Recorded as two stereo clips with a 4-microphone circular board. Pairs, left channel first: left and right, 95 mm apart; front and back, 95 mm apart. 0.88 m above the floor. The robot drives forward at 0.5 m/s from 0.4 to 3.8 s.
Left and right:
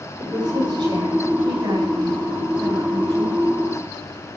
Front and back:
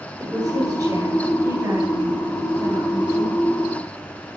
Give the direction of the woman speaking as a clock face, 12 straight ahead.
4 o'clock.